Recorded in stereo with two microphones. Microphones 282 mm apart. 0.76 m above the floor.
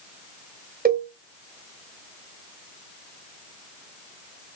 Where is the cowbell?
30° right (ahead or behind), 1.6 m.